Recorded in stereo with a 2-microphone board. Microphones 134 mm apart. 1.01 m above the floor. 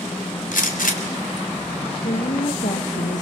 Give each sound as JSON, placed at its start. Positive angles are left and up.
{"t": 0.5, "sound": "a gunshot", "side_deg": 85, "distance_m": 3.0}
{"t": 2.0, "sound": "a woman speaking", "side_deg": 65, "distance_m": 1.5}